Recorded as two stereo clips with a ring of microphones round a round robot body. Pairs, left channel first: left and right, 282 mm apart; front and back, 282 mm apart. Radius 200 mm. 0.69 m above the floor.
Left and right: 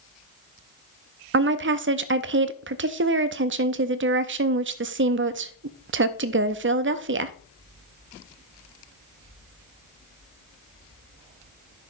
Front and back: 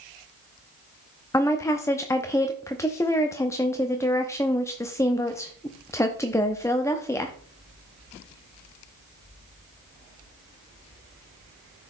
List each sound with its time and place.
1.3 s a woman speaking: 75° right, 0.6 m